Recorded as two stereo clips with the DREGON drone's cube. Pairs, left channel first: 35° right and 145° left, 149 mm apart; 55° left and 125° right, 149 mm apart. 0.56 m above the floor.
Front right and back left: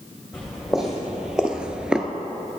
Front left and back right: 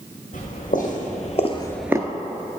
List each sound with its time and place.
0.3 s footsteps: 60° left, 1.9 m; by 2.1 s 135° right, 0.6 m